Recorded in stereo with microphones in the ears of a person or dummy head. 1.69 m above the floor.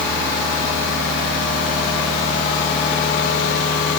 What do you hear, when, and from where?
Only background noise.